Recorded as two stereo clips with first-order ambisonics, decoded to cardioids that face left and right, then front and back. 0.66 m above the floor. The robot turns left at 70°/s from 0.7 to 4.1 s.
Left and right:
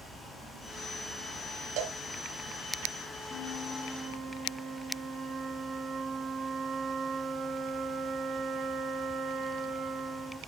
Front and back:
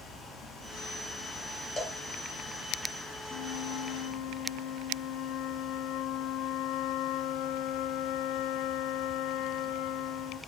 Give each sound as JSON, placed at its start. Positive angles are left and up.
{"t": 1.8, "sound": "a cowbell", "azimuth_deg": -75, "distance_m": 2.0}
{"t": 3.3, "sound": "a flute", "azimuth_deg": 35, "distance_m": 1.2}